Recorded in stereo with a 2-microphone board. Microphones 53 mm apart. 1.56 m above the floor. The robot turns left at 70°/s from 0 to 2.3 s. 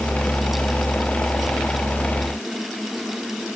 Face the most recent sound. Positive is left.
No sound to turn to.